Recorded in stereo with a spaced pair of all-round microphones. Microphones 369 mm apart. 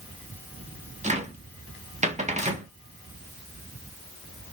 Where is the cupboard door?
20° right (ahead or behind), 0.8 m.